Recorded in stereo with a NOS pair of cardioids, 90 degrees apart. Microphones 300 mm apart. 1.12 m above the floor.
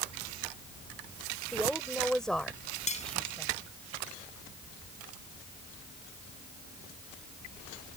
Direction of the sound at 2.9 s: 25° left.